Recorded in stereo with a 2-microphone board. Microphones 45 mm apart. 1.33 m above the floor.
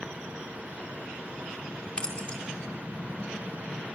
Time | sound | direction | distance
2.0 | keys jangling | 25° left (ahead or behind) | 4.5 m